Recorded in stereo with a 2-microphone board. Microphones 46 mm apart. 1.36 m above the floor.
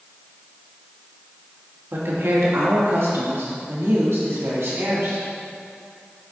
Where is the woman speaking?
60° right (ahead or behind), 1.8 m; by 5.2 s 80° right, 3 m.